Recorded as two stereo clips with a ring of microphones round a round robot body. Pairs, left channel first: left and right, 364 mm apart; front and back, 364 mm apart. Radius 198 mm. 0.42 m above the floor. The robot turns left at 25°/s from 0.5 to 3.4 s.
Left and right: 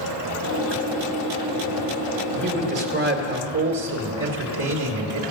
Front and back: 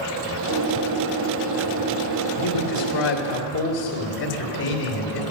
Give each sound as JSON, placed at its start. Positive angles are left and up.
{"t": 2.3, "sound": "a man speaking", "azimuth_deg": -25, "distance_m": 1.9}